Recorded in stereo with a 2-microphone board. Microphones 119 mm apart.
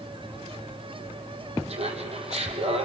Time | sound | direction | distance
1.7 | laughter | 65° right (ahead or behind) | 4 m